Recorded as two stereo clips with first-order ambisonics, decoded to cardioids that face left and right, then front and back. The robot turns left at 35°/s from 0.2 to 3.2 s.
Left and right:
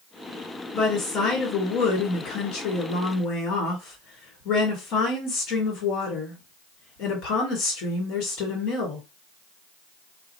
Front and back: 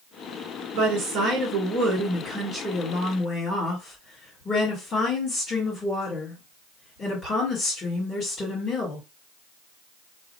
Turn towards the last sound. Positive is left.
turn(degrees=70)